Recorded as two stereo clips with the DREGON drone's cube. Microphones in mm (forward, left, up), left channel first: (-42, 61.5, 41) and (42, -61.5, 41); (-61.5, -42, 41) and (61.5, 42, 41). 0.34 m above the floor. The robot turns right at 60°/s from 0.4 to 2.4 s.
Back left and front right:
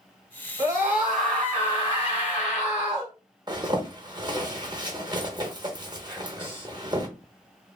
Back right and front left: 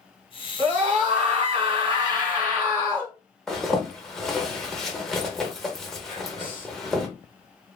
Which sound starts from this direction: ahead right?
A zipper, at 3.5 s.